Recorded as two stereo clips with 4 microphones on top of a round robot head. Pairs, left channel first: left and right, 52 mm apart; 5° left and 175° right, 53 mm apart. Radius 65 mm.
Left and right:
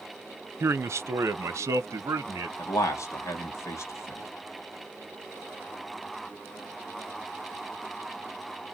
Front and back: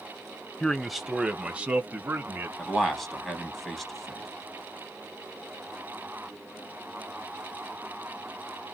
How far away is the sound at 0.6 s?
About 0.6 m.